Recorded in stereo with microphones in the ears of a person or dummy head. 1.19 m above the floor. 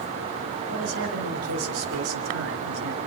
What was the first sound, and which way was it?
A man speaking, 80° right.